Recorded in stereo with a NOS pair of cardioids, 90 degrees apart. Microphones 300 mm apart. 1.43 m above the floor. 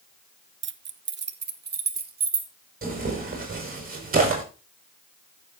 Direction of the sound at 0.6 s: 40° right.